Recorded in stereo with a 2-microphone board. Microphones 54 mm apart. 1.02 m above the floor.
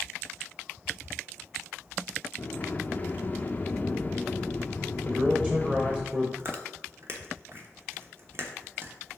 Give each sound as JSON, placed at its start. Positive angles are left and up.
{"t": 2.4, "sound": "a sliding door", "side_deg": 30, "distance_m": 0.6}
{"t": 5.0, "sound": "a man speaking", "side_deg": -20, "distance_m": 1.1}
{"t": 6.4, "sound": "chewing", "side_deg": -45, "distance_m": 1.1}